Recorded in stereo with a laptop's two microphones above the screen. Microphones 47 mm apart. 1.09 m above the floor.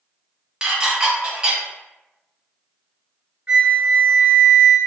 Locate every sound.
0.6 s dishes clattering: 20° right (ahead or behind), 0.9 m
3.5 s a flute: 30° right (ahead or behind), 1.4 m